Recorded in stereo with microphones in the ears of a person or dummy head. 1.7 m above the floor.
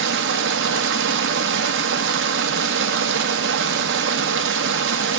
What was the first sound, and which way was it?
Running water, 70° right (ahead or behind).